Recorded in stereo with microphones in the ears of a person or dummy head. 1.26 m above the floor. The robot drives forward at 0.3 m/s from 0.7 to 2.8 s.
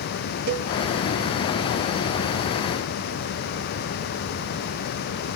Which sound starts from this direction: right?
A cowbell, at 0.5 s.